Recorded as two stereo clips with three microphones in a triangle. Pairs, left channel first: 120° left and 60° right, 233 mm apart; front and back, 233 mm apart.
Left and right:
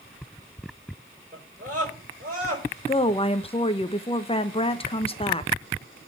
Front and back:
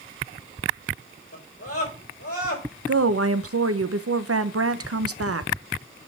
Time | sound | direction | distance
1.3 | a scream | 5° right | 5.5 m
2.9 | a woman speaking | 175° right | 0.8 m